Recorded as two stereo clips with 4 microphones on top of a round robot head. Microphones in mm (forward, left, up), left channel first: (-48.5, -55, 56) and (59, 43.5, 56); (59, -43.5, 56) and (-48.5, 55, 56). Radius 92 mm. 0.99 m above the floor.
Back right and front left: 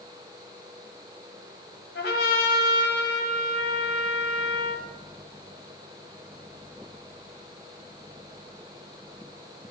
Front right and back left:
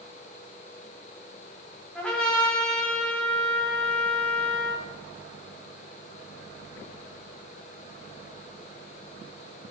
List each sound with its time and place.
1.9 s a trumpet: 130° right, 1.3 m